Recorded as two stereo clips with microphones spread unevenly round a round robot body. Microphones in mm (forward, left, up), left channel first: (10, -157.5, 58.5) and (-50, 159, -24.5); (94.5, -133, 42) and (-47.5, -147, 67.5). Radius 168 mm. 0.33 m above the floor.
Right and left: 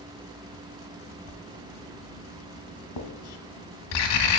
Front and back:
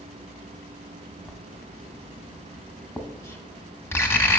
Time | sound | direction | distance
1.3 | writing | 65° right | 1.5 m